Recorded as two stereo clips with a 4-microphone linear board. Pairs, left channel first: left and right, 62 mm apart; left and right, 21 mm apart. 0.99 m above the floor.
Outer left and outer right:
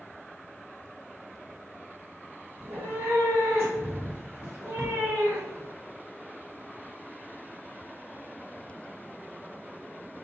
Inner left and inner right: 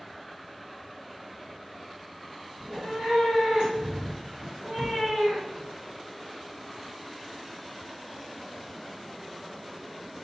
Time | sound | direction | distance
2.6 | a cat meowing | 40° right (ahead or behind) | 1.5 m